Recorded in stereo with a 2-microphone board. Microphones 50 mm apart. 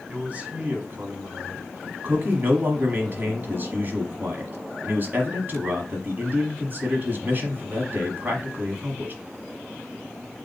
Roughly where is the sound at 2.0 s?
Right.